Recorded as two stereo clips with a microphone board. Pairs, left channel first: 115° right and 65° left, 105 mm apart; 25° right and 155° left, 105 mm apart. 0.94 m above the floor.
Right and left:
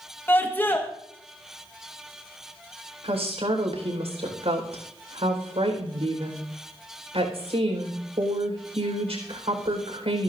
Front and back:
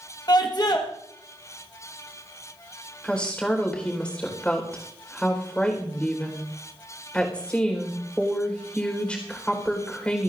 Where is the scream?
50° right, 1.3 m.